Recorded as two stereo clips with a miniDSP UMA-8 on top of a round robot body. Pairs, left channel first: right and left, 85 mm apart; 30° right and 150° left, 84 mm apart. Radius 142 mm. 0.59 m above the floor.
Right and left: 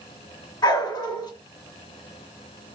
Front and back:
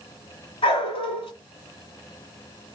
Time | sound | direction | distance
0.6 | a dog barking | 50° right | 2 m